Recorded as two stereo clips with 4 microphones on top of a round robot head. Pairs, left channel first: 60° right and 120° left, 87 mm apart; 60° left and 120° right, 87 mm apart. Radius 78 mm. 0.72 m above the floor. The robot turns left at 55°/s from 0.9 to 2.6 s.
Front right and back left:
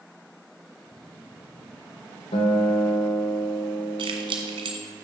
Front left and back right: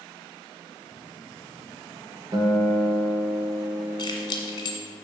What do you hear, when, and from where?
2.3 s a guitar: 70° right, 1.6 m; by 4.8 s 90° right, 1.6 m
4.0 s keys jangling: 100° left, 1.8 m